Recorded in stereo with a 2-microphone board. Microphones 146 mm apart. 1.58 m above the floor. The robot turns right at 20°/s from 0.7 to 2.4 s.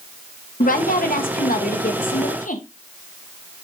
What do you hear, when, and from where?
0.6 s a woman speaking: 80° left, 1.3 m; by 2.6 s 110° left, 1.3 m